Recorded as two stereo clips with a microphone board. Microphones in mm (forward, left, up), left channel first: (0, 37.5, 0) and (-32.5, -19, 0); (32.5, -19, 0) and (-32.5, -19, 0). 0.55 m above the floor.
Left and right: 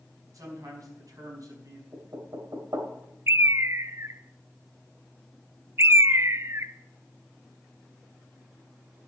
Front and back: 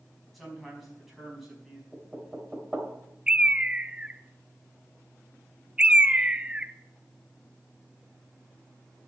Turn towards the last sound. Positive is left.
turn(degrees=-115)